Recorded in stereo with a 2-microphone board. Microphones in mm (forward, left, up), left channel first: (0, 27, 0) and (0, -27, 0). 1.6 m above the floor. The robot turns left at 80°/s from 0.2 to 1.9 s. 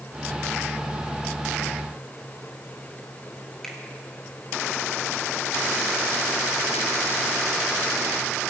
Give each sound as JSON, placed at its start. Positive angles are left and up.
{"t": 3.6, "sound": "a finger snap", "side_deg": 15, "distance_m": 2.5}